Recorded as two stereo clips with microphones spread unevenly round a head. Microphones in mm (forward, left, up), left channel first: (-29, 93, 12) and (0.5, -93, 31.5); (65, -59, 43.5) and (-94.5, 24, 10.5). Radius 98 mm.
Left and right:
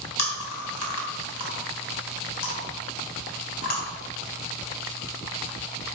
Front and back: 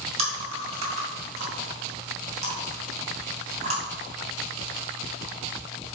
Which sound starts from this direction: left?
Chewing, at 0.2 s.